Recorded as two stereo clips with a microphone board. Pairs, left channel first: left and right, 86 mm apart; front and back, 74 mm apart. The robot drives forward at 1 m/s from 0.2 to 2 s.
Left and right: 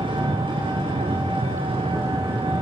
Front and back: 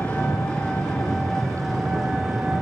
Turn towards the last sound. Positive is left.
turn(degrees=-95)